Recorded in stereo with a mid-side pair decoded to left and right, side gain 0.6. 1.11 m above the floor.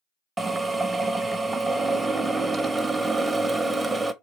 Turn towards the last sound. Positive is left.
turn(degrees=-15)